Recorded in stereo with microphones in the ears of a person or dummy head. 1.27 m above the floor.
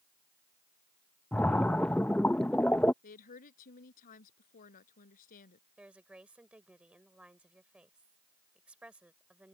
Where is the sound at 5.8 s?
10° right (ahead or behind).